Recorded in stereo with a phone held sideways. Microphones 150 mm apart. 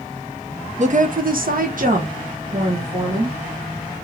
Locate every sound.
0.8 s a woman speaking: 50° right (ahead or behind), 0.6 m; by 3.4 s 40° right (ahead or behind), 1.4 m